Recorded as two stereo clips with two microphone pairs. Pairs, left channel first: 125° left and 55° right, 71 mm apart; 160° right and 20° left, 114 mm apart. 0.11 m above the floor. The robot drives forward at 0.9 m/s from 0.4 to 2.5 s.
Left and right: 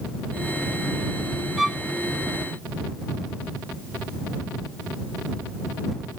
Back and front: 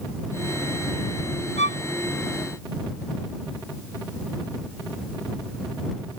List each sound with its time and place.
1.6 s a violin: 145° right